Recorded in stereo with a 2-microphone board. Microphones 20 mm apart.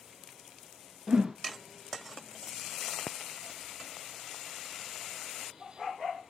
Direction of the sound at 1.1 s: 40° right (ahead or behind).